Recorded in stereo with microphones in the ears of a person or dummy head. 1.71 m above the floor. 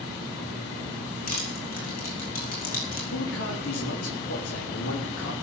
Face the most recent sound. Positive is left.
turn(degrees=85)